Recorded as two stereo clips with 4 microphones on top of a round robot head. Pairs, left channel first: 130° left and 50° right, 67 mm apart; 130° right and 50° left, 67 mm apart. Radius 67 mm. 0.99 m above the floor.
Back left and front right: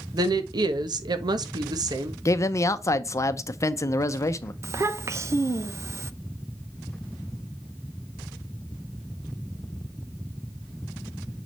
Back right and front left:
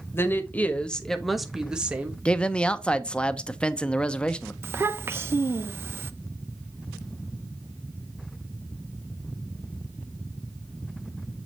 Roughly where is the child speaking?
Ahead.